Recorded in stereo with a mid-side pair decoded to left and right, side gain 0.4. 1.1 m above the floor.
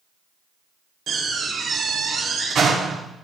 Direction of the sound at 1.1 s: 60° right.